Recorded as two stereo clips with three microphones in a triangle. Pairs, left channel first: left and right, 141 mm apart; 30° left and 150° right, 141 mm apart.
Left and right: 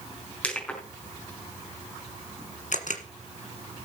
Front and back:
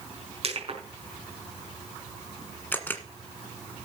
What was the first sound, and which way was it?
Crushing, 170° left.